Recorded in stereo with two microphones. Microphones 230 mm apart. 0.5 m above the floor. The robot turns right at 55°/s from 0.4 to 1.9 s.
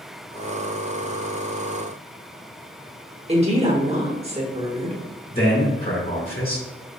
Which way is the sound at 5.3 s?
40° left (ahead or behind).